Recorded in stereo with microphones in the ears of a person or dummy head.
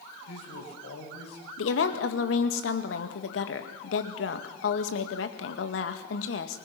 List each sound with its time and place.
0.3 s a man speaking: 65° left (ahead or behind), 7 m
1.6 s a woman speaking: 70° left (ahead or behind), 1.8 m